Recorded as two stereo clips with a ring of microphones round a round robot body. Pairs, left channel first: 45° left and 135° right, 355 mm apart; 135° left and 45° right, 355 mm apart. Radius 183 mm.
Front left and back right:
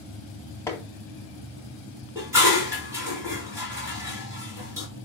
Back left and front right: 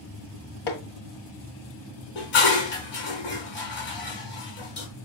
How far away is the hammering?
About 1.8 m.